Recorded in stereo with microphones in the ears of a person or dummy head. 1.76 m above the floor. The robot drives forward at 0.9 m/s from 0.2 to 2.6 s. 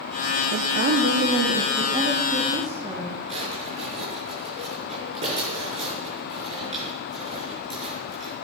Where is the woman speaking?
45° right (ahead or behind), 0.9 m; by 3.2 s 20° right (ahead or behind), 2 m.